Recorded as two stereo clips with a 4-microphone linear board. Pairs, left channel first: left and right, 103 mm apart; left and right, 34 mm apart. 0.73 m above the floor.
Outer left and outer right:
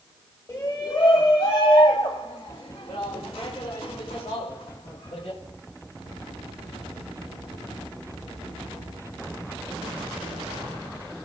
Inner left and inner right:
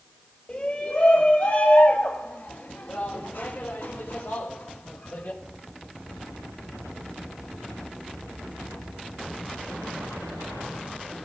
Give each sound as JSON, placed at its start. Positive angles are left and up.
{"t": 0.5, "sound": "a shout", "side_deg": 30, "distance_m": 1.6}